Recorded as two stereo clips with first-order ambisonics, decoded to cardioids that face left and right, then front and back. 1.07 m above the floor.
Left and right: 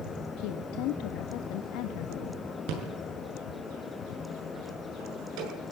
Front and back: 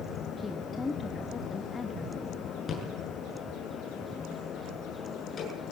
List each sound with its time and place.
0.4 s a woman speaking: 70° left, 1.5 m
2.7 s a rattle: 65° right, 7.5 m